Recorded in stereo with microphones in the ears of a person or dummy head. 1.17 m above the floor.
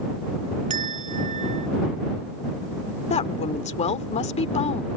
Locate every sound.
0.7 s a bell: 35° right (ahead or behind)
3.1 s a woman speaking: 40° left (ahead or behind)